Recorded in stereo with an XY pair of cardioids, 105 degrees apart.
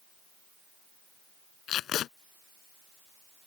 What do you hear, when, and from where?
1.7 s tape being pulled: 70° left